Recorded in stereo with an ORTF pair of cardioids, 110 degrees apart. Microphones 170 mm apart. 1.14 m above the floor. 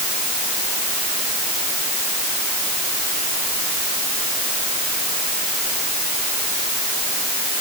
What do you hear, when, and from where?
Only background noise.